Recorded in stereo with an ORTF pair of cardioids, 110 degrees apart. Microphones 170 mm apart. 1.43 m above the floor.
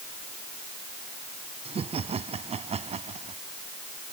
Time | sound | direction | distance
1.6 | laughter | 35° right | ?